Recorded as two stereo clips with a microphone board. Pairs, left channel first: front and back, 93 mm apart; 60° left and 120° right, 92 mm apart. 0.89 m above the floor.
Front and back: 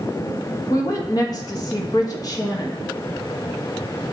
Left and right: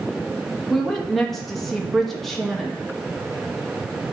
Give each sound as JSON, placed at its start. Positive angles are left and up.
{"t": 0.7, "sound": "a woman speaking", "azimuth_deg": -25, "distance_m": 1.2}